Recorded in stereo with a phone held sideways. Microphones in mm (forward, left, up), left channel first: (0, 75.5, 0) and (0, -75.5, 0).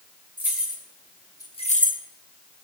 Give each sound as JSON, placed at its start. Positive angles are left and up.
{"t": 0.4, "sound": "keys jangling", "side_deg": -10, "distance_m": 2.5}